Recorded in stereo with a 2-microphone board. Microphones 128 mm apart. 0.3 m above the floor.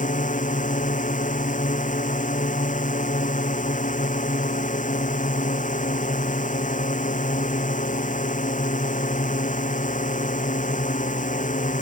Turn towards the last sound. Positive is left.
turn(degrees=80)